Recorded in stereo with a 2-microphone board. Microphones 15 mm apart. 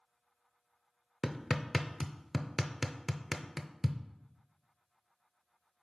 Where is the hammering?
5° right (ahead or behind), 0.5 m.